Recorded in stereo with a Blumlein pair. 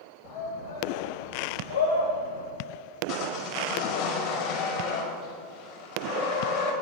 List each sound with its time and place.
0.2 s a shout: 55° left, 3.5 m; by 2.5 s 75° left, 6.5 m
3.1 s sawing: 45° left, 4.5 m